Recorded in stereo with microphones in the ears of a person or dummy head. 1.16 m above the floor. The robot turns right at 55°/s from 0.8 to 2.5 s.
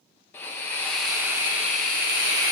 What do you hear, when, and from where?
0.3 s a hiss: 170° left, 1.3 m; by 2.5 s 95° right, 1.3 m